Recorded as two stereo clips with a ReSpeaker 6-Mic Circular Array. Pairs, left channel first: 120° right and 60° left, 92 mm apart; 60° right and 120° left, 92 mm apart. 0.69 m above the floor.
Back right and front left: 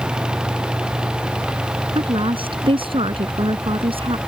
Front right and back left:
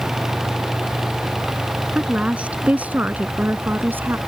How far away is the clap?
I don't hear a clap.